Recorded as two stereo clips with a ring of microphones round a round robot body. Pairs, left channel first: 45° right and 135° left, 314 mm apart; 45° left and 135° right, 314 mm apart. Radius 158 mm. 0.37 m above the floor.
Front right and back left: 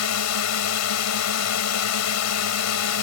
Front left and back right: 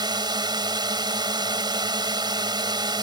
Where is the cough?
I don't hear a cough.